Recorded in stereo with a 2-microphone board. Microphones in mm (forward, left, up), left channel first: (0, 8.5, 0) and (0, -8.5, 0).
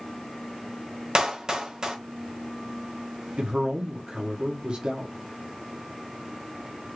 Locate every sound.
1.1 s a clap: 45° right (ahead or behind), 1.0 m
3.4 s a man speaking: 60° right (ahead or behind), 0.9 m